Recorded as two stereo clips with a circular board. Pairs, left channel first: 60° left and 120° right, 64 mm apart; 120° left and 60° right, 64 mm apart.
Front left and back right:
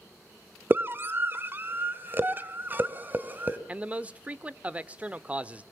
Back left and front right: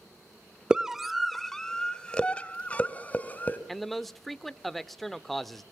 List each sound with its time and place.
0.7 s a scream: 130° right, 1.0 m; by 3.6 s straight behind, 2.5 m
3.7 s a man speaking: 155° right, 0.8 m